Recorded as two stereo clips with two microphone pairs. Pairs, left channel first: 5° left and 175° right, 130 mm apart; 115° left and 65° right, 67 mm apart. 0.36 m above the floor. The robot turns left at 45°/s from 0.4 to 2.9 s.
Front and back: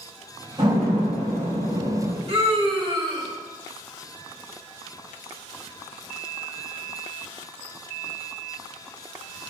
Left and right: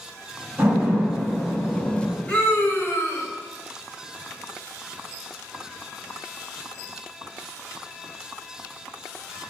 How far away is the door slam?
About 2 m.